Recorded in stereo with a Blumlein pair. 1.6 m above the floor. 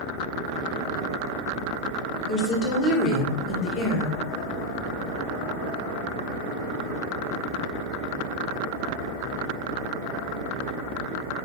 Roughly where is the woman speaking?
Ahead left.